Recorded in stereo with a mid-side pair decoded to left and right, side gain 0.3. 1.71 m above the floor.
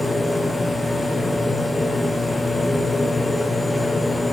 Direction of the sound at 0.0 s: 15° left.